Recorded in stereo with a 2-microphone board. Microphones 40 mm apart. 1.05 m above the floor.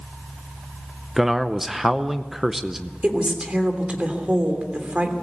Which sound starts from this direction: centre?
A man speaking, at 1.2 s.